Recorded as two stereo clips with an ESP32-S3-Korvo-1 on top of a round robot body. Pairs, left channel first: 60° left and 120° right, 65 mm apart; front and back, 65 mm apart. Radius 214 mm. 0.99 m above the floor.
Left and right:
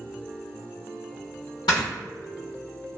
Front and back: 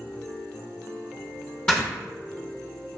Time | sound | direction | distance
1.7 | snoring | 70° left | 0.6 m